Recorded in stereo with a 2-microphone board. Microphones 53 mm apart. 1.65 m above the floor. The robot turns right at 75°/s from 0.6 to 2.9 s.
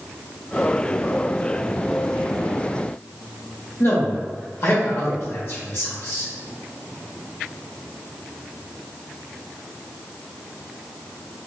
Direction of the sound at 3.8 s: 50° left (ahead or behind).